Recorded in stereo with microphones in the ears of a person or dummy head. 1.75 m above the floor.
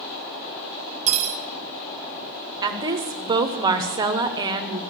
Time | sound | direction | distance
1.1 | cutlery clinking | 35° right (ahead or behind) | 1.1 m
2.6 | a woman speaking | 20° right (ahead or behind) | 0.9 m